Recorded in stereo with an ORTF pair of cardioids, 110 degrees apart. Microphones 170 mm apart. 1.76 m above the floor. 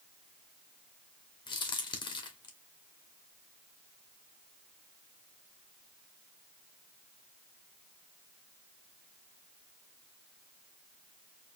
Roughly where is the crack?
Ahead left.